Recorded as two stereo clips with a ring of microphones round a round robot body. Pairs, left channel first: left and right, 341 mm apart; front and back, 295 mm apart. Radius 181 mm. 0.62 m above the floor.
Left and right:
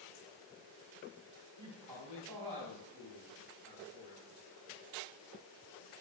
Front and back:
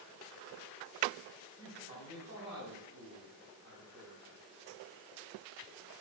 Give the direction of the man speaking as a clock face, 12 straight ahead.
4 o'clock.